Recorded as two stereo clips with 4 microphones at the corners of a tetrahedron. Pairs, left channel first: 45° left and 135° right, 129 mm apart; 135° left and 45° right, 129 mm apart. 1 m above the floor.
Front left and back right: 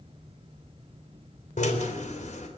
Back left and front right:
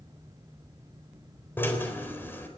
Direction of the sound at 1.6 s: 60° left.